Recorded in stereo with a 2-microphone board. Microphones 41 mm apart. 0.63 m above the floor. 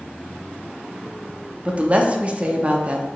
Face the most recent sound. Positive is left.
turn(degrees=-30)  # may be behind; listen again after turning